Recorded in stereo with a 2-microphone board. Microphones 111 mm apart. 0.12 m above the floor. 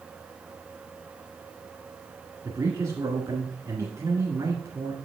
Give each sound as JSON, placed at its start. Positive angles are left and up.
{"t": 2.4, "sound": "a man speaking", "side_deg": -30, "distance_m": 1.2}